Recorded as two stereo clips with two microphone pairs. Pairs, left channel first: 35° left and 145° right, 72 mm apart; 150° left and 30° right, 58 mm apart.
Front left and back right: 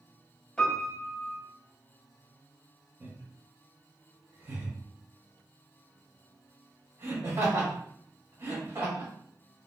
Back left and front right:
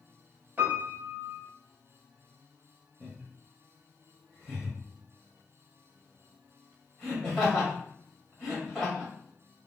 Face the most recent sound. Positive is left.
turn(degrees=-115)